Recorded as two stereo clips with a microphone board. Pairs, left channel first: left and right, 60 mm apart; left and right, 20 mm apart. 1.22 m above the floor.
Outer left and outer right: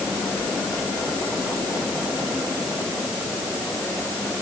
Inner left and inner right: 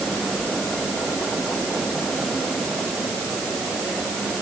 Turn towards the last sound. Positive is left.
No sound to turn to.